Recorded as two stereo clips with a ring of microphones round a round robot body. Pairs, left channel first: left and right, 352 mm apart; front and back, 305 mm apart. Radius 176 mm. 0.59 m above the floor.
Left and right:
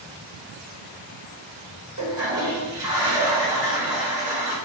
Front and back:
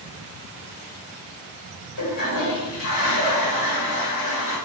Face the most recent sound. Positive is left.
turn(degrees=-50)